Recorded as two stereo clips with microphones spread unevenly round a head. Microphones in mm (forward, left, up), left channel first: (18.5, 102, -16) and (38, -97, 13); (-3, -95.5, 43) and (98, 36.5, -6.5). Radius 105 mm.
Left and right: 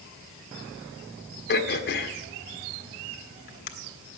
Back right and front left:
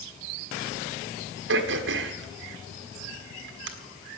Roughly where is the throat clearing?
Ahead left.